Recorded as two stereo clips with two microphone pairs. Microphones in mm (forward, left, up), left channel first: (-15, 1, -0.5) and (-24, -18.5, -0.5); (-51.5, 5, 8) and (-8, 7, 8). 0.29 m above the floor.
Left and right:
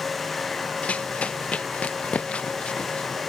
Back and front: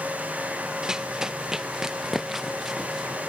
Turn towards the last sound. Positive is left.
turn(degrees=85)